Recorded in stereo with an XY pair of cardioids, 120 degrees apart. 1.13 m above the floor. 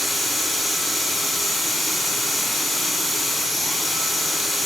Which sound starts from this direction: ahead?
A machine running, at 0.0 s.